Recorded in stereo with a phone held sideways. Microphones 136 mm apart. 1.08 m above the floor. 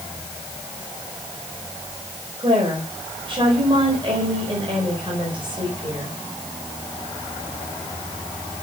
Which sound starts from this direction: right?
A woman speaking, at 2.4 s.